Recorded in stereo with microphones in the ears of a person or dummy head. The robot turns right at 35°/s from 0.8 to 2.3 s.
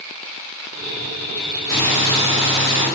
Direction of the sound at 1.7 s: Centre (ahead or behind).